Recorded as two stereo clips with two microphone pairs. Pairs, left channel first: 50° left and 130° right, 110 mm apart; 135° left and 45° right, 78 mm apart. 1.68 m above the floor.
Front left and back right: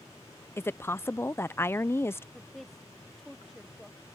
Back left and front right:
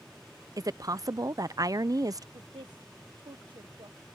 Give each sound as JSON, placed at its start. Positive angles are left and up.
{"t": 0.6, "sound": "a woman speaking", "azimuth_deg": -20}
{"t": 2.3, "sound": "a woman speaking", "azimuth_deg": -40}